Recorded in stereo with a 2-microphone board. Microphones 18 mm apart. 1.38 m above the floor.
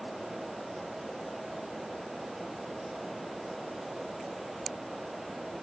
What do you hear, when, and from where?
Only background noise.